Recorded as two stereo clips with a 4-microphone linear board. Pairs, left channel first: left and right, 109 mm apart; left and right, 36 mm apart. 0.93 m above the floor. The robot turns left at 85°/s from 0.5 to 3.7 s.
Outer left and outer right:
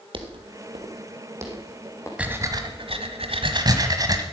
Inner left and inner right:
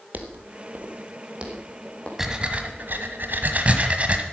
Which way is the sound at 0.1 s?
50° right (ahead or behind).